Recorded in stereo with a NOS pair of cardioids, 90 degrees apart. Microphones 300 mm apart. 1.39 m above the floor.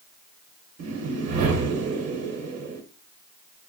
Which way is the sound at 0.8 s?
55° right.